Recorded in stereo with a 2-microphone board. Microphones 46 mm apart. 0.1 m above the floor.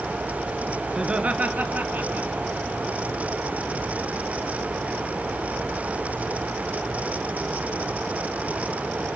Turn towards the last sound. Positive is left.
turn(degrees=-45)  # may be behind; listen again after turning